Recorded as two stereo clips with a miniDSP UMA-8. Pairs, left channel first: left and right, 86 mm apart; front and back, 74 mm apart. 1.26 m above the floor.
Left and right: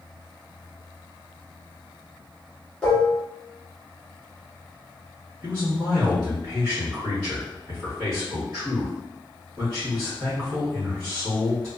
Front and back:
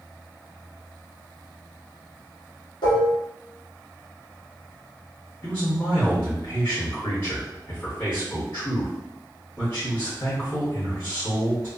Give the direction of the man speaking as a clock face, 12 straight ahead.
1 o'clock.